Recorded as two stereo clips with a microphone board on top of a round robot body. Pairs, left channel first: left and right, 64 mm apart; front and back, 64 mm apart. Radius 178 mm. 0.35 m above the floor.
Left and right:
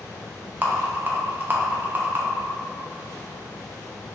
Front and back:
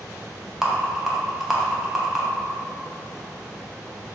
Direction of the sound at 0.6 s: 100° right.